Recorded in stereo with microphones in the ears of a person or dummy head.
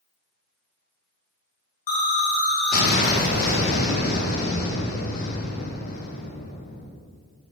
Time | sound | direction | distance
1.9 | an explosion | 45° left (ahead or behind) | 0.9 m